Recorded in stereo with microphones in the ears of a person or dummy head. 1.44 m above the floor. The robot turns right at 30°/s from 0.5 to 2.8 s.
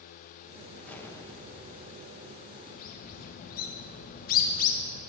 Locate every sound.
0.8 s an explosion: 5° left, 0.8 m; by 2.1 s 45° left, 0.8 m
2.7 s a bird: 50° left (ahead or behind), 1.3 m